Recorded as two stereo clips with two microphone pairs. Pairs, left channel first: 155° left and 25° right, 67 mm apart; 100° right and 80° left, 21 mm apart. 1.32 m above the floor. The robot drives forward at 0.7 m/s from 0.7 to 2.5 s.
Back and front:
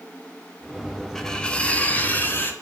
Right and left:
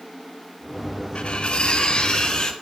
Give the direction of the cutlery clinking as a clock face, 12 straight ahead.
4 o'clock.